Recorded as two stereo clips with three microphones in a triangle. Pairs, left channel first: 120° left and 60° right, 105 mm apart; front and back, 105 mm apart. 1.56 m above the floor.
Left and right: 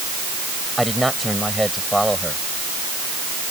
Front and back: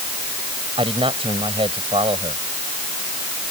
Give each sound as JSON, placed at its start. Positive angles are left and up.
{"t": 0.8, "sound": "a man speaking", "azimuth_deg": -150}